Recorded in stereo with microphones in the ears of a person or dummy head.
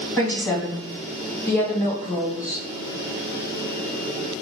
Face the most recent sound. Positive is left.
turn(degrees=10)  # may be behind; listen again after turning